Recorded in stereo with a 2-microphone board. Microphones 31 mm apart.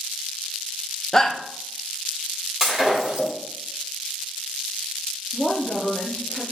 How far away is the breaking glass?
About 1.8 m.